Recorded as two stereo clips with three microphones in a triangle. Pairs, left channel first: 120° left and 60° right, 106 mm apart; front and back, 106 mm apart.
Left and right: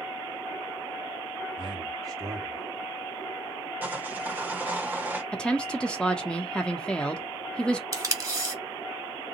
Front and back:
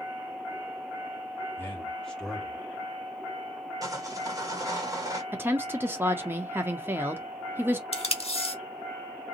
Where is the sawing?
130° right, 1.4 m.